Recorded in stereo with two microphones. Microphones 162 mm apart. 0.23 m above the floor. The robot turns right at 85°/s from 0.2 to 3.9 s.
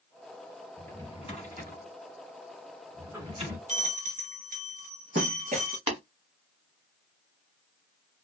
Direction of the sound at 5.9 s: 40° right (ahead or behind).